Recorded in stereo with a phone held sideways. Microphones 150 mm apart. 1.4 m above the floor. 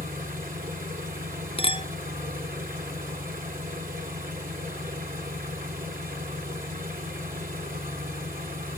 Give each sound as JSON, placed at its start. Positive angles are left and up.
{"t": 0.0, "sound": "an engine running", "side_deg": -60, "distance_m": 2.0}
{"t": 1.6, "sound": "a clink", "side_deg": 35, "distance_m": 0.6}